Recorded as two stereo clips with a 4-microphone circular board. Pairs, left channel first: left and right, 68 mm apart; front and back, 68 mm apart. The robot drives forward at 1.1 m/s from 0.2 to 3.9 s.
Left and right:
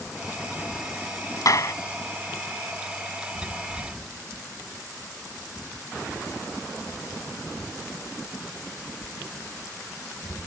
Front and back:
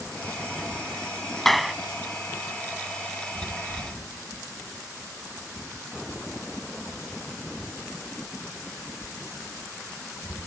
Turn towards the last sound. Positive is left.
turn(degrees=150)